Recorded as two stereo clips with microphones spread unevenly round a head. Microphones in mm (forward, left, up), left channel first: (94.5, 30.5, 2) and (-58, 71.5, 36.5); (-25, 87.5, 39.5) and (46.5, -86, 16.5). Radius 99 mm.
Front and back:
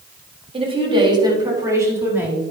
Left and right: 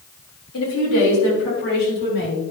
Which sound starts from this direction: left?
A woman speaking, at 0.5 s.